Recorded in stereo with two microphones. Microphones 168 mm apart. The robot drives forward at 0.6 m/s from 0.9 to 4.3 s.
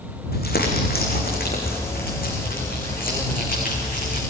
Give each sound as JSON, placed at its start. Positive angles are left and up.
{"t": 0.3, "sound": "crumpling", "side_deg": 65, "distance_m": 6.0}